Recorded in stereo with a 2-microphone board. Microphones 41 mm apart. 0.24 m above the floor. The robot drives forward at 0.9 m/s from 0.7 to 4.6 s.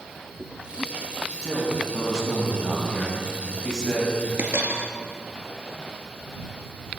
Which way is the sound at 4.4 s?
75° right (ahead or behind).